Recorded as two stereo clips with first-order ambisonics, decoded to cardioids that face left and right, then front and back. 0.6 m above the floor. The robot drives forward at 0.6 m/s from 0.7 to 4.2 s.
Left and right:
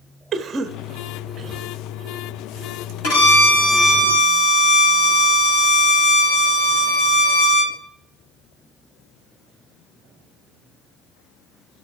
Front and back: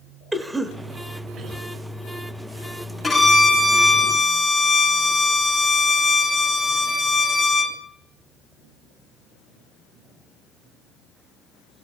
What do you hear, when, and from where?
0.3 s a cough: 110° right, 0.8 m; by 1.6 s 155° right, 1.0 m
3.0 s a violin: 90° left, 4 m; by 7.8 s 100° left, 4 m